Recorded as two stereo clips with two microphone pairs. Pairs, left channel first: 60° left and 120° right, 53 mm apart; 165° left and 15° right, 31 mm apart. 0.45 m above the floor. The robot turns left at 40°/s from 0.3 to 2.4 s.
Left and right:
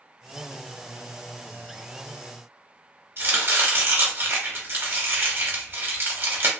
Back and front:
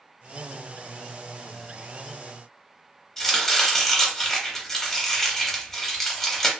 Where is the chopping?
115° right, 1.1 m.